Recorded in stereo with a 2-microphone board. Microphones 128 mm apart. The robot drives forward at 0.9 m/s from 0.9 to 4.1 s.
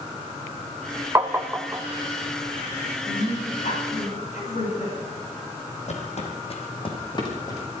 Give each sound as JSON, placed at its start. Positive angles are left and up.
{"t": 1.1, "sound": "tapping", "side_deg": -25, "distance_m": 0.8}
{"t": 3.0, "sound": "a woman speaking", "side_deg": 75, "distance_m": 8.0}
{"t": 5.9, "sound": "footsteps", "side_deg": 60, "distance_m": 2.5}